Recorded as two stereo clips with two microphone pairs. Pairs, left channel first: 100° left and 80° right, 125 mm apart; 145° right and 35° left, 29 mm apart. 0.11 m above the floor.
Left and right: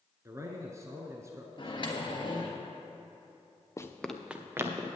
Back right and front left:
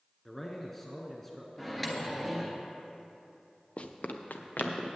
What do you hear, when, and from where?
0.2 s a man speaking: 70° right, 1.1 m
1.6 s a microwave: 130° left, 1.3 m
3.8 s running footsteps: 165° left, 0.9 m; by 4.9 s 145° right, 1.8 m